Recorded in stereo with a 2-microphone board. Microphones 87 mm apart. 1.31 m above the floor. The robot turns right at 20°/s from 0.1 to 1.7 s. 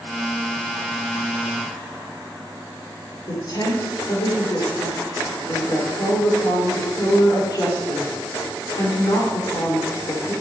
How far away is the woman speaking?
About 4.5 m.